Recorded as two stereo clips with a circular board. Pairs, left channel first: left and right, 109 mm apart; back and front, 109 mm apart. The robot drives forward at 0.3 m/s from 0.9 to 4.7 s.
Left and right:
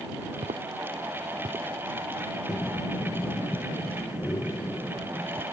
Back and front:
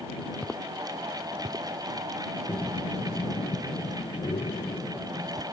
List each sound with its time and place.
0.4 s footsteps: 100° right; by 1.7 s 40° right
2.5 s breathing: 135° left; by 5.4 s 160° left